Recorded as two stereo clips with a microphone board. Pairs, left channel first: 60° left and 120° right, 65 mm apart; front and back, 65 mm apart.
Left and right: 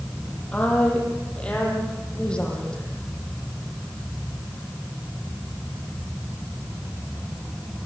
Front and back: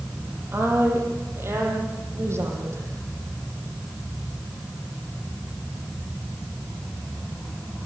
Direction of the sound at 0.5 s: 130° left.